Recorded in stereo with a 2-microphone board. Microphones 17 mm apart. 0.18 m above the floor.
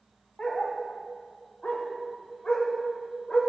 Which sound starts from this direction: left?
A dog barking, at 0.4 s.